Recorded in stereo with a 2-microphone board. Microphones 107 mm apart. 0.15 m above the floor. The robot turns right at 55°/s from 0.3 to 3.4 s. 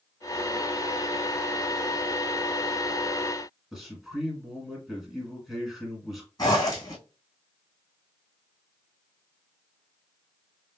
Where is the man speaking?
Centre (ahead or behind), 1.8 m.